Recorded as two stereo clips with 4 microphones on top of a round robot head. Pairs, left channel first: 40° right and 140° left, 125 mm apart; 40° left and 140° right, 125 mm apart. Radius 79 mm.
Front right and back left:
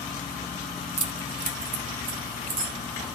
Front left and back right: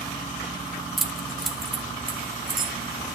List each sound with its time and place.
1.0 s keys jangling: 130° left, 1.1 m